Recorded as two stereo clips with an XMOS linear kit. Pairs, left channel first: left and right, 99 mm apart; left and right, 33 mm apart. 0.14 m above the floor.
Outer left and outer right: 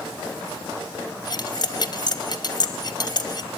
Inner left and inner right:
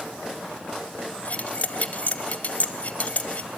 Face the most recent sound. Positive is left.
turn(degrees=45)  # may be behind; listen again after turning